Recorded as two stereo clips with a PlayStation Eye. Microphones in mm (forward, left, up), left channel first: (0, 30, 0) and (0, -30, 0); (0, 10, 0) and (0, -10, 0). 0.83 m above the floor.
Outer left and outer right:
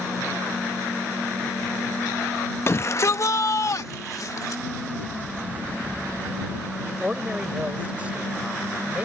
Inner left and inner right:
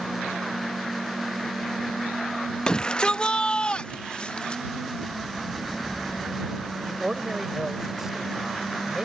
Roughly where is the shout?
Left.